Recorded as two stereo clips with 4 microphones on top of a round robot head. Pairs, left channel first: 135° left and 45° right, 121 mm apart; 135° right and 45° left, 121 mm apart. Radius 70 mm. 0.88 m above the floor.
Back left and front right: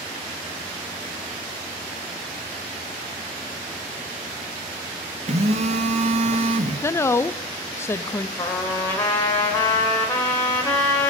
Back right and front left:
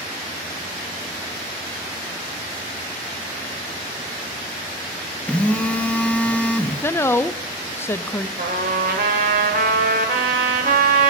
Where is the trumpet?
60° left, 1.9 m.